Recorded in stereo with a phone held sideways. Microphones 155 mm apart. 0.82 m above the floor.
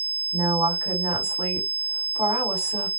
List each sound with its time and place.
0.3 s a woman speaking: 25° right (ahead or behind), 2.5 m